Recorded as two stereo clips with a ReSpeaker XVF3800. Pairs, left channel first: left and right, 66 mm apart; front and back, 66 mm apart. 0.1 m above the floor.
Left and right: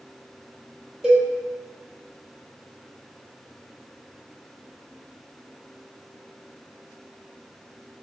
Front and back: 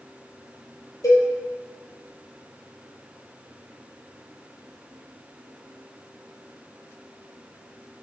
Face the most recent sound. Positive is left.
turn(degrees=-10)